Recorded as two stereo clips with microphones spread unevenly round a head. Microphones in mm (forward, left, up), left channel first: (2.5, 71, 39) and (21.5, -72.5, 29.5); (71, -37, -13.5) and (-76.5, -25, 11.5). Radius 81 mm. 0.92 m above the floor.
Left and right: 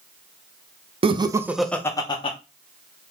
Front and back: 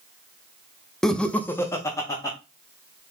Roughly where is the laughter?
Right.